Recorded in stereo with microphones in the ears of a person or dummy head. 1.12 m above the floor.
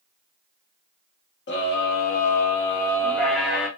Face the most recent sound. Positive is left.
turn(degrees=-5)  # may be behind; listen again after turning